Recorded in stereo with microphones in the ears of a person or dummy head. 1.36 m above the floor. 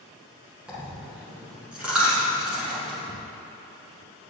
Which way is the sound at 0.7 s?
5° right (ahead or behind).